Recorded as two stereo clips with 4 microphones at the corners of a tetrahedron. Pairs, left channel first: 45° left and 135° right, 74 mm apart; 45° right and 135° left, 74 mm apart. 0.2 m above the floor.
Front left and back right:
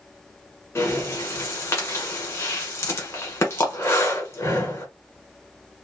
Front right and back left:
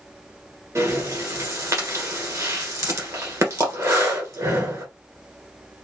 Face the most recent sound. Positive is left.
turn(degrees=95)